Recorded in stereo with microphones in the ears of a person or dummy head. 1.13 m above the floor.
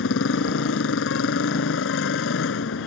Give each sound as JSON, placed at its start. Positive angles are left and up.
{"t": 0.0, "sound": "a motorcycle", "side_deg": 80}